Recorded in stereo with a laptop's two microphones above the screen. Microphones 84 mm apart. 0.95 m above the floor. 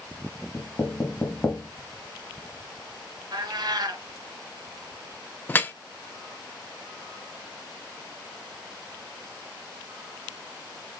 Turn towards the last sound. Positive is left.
turn(degrees=25)  # may be behind; listen again after turning